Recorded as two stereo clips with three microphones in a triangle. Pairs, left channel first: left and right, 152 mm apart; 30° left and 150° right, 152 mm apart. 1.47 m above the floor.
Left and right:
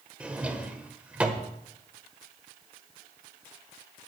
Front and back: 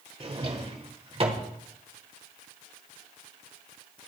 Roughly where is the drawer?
Behind.